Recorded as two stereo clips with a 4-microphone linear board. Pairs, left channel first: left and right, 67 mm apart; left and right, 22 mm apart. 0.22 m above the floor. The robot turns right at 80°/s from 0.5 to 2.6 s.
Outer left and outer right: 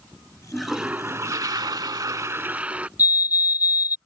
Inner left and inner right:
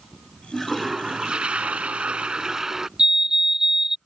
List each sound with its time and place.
0.5 s a toilet flushing: 170° left; by 2.9 s 20° right
3.0 s a fire alarm: 25° right (ahead or behind)